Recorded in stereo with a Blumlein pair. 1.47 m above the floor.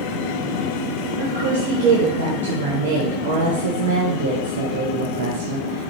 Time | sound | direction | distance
1.2 | a woman speaking | 60° right | 0.9 m